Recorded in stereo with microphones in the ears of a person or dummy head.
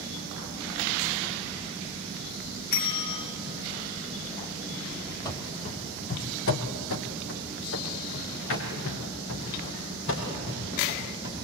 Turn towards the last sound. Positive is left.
turn(degrees=65)  # may be behind; listen again after turning